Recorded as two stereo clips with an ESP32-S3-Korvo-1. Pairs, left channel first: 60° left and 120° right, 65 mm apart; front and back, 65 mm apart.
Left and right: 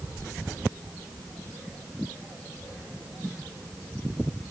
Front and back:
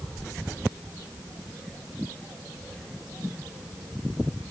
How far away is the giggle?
I don't hear a giggle.